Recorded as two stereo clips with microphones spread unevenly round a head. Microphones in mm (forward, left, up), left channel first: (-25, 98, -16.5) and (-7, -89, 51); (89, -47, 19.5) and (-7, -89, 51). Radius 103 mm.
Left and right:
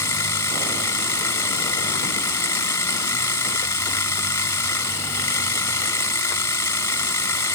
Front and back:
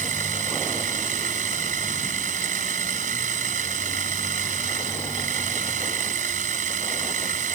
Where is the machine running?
175° left.